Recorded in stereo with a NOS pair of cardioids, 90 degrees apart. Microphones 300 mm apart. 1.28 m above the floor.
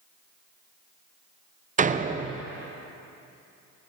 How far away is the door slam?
About 0.7 m.